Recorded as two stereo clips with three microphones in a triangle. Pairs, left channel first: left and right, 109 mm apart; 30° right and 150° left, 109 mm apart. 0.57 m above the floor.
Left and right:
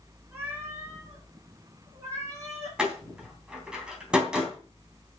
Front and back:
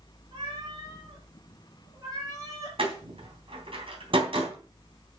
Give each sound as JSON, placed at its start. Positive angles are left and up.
{"t": 0.3, "sound": "a cat meowing", "azimuth_deg": -165, "distance_m": 4.5}
{"t": 2.8, "sound": "a door slam", "azimuth_deg": -170, "distance_m": 3.0}